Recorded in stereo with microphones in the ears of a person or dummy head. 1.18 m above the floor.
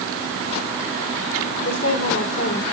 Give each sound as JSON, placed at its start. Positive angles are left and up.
{"t": 1.6, "sound": "a woman speaking", "side_deg": 75, "distance_m": 3.0}